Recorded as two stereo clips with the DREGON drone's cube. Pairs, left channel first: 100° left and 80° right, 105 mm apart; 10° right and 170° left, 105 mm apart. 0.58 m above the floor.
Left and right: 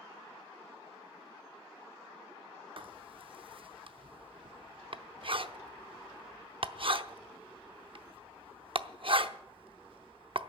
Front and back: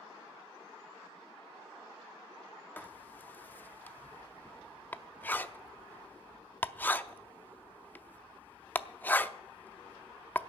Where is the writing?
80° right, 0.6 m.